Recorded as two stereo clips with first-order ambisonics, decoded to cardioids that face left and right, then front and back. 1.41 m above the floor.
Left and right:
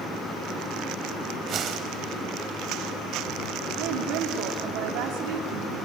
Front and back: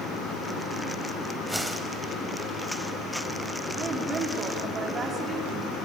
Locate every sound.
1.5 s a whoosh: 95° right, 1.4 m
3.8 s a woman speaking: 110° right, 3 m